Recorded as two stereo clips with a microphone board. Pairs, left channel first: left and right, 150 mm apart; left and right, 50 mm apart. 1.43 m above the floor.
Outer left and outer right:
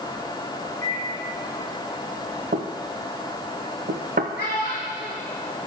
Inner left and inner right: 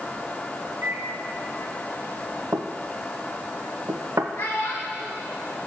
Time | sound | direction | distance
0.8 | a microwave | 65° right (ahead or behind) | 2 m
2.5 | knocking | 75° right (ahead or behind) | 0.6 m
4.4 | a child speaking | 70° left (ahead or behind) | 1.3 m